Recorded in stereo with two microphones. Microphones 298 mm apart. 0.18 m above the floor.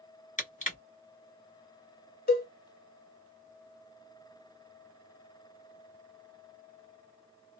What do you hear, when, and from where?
0.4 s crushing: 25° left (ahead or behind), 1.2 m
2.3 s a cowbell: 35° left (ahead or behind), 0.5 m